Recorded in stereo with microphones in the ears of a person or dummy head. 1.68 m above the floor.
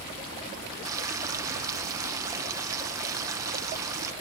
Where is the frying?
15° right (ahead or behind).